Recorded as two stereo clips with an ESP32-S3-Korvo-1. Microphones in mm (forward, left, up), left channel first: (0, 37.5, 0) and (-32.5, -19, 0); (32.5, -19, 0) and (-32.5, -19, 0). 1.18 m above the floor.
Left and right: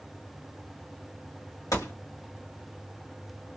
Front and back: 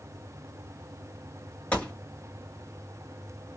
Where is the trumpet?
I don't hear a trumpet.